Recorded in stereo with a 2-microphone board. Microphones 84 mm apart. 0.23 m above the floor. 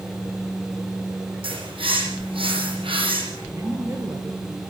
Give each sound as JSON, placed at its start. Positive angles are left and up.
{"t": 1.4, "sound": "a bird", "side_deg": -85, "distance_m": 9.0}
{"t": 3.5, "sound": "a woman speaking", "side_deg": -35, "distance_m": 4.0}